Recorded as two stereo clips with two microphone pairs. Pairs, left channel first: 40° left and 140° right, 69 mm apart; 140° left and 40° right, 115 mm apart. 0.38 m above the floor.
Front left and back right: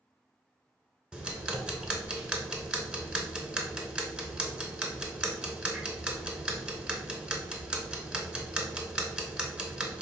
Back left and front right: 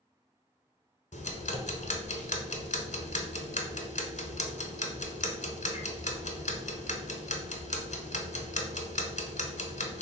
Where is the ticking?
140° left, 0.7 m.